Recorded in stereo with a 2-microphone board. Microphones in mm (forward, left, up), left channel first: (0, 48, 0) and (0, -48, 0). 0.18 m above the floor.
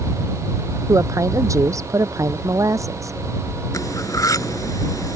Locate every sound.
0.9 s a woman speaking: 35° right (ahead or behind)
3.7 s cutlery clinking: 40° left (ahead or behind)